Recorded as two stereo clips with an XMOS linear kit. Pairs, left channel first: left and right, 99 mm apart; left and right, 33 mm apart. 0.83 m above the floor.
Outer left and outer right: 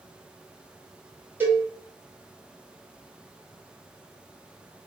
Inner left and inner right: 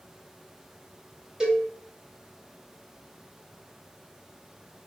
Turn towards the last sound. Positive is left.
turn(degrees=-20)  # may be behind; listen again after turning